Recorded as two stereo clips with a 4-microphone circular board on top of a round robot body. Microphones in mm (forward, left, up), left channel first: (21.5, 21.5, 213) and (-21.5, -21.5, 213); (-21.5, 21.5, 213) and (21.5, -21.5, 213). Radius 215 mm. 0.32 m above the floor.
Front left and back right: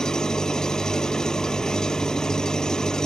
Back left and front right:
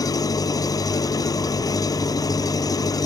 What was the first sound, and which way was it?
An engine running, 125° left.